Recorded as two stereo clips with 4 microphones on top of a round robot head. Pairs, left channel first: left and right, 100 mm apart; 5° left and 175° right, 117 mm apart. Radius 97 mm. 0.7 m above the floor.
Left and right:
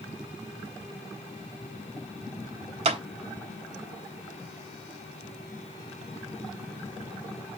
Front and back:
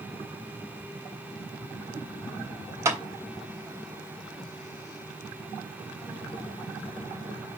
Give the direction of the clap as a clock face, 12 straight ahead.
4 o'clock.